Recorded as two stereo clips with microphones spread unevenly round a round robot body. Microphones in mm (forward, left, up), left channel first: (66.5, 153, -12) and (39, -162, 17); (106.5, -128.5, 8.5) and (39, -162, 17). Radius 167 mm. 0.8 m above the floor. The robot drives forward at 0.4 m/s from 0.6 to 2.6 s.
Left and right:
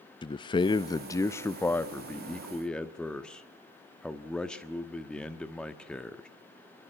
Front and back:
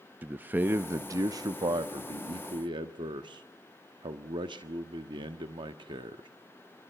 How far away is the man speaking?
About 0.5 m.